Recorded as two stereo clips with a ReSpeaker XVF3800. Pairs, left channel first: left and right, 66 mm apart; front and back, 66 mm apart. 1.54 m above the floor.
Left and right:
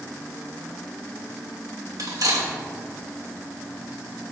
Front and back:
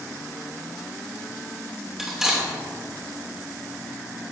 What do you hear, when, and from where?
2.0 s cutlery clinking: 95° right, 2.5 m